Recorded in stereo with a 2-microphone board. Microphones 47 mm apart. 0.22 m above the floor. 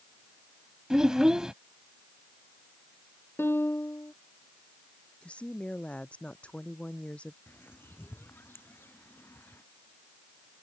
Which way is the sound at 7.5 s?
45° left (ahead or behind).